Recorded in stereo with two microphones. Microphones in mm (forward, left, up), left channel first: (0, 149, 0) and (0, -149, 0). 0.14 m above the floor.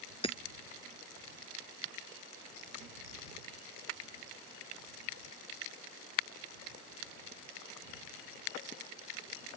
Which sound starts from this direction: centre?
Hammering, at 0.2 s.